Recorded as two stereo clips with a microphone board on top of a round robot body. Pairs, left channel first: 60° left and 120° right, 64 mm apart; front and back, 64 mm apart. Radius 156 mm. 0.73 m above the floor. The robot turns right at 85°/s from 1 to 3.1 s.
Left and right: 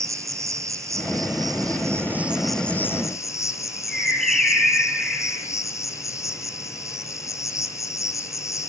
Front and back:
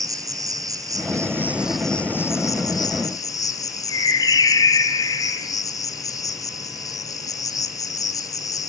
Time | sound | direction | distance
0.0 | an insect | 155° right | 1.7 m
3.9 | a bird | 25° right | 3 m